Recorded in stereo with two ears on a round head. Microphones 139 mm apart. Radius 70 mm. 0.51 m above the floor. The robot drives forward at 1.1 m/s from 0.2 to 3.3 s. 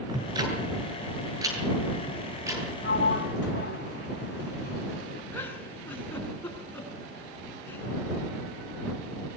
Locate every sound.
0.1 s ticking: 25° right (ahead or behind), 7.5 m; by 2.6 s 20° right (ahead or behind), 10 m
2.8 s a sliding door: 65° left (ahead or behind), 3 m; by 5.2 s 75° left (ahead or behind), 3 m
5.3 s a giggle: 15° left (ahead or behind), 6.5 m